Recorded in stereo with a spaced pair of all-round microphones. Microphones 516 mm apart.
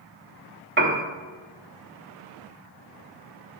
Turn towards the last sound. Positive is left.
turn(degrees=-20)  # may be behind; listen again after turning